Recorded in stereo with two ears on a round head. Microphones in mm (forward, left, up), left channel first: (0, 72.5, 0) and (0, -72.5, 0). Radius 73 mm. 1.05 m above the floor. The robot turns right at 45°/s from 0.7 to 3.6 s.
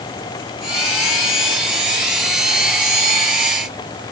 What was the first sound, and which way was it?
Only background noise.